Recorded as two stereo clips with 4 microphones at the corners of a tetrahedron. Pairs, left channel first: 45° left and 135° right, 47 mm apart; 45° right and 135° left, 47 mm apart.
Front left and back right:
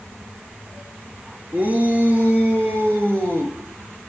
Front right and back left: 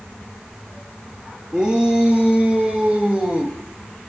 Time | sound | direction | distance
1.5 | a shout | 160° right | 2 m